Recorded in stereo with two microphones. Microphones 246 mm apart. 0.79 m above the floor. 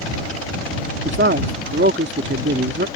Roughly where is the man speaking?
Right.